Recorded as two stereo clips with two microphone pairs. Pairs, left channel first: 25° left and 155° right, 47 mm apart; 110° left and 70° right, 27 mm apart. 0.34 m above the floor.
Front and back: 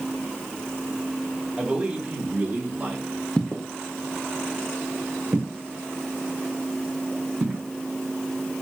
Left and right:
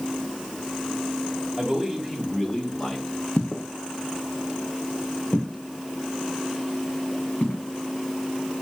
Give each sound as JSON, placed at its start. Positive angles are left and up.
{"t": 1.6, "sound": "a man speaking", "azimuth_deg": -125, "distance_m": 1.2}
{"t": 3.4, "sound": "footsteps", "azimuth_deg": 95, "distance_m": 0.7}